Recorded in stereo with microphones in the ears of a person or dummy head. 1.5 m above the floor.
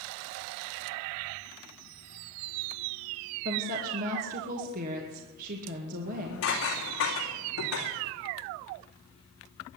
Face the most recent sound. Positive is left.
turn(degrees=75)  # may be behind; listen again after turning